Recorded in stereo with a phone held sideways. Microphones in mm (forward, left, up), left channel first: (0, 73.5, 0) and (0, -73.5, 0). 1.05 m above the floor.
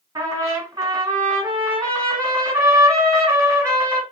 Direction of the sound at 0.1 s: 25° right (ahead or behind).